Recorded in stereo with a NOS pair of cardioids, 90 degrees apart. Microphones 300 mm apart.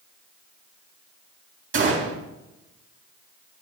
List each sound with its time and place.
1.7 s a gunshot: 45° right, 4 m